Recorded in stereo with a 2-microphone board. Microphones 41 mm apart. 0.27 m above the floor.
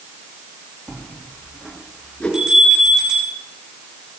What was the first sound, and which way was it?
A bell, 20° right (ahead or behind).